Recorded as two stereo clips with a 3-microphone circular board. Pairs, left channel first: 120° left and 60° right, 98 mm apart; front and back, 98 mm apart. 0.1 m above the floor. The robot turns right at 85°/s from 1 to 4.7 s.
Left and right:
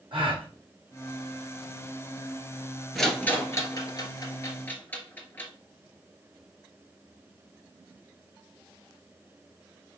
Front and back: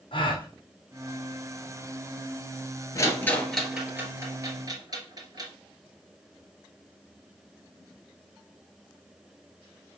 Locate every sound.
0.1 s a gasp: 30° right, 3 m
3.0 s a rattle: 30° left, 1.5 m; by 5.5 s straight behind, 1.5 m